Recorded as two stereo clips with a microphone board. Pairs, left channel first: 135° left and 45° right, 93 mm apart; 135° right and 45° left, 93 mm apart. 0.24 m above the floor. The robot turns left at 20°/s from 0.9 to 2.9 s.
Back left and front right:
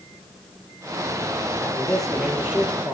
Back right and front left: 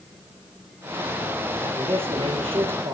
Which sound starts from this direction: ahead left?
A man speaking, at 1.6 s.